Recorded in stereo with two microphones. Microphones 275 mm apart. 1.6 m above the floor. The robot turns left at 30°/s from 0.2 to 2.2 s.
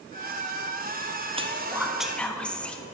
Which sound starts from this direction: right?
Whispering, at 1.4 s.